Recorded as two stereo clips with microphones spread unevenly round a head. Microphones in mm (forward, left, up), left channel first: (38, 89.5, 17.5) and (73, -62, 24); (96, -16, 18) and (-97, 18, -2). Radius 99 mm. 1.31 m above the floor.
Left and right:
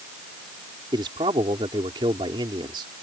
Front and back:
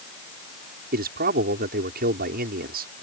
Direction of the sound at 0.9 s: 145° right.